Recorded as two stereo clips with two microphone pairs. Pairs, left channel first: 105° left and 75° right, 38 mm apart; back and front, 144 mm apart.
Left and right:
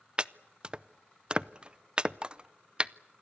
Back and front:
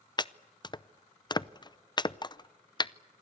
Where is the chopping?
130° right, 0.6 m.